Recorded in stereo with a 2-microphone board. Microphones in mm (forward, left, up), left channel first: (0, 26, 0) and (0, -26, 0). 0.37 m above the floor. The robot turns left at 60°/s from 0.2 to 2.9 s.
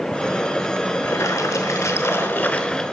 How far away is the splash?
About 0.9 m.